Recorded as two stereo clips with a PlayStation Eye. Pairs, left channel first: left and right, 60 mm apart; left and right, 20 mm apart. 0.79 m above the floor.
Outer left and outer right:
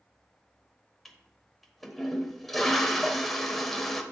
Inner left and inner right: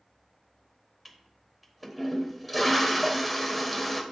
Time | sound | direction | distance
1.1 | a toilet flushing | centre (ahead or behind) | 1.1 m